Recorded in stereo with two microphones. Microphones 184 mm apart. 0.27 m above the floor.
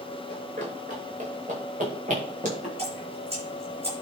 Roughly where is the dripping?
Right.